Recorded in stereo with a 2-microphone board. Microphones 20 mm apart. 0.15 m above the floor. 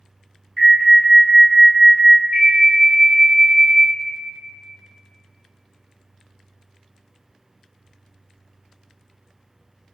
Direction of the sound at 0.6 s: 15° left (ahead or behind).